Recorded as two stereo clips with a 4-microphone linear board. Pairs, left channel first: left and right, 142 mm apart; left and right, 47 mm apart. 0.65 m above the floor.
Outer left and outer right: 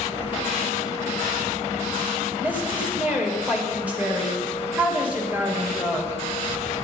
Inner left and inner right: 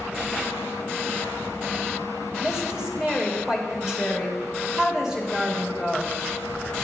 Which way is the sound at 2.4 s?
10° right (ahead or behind).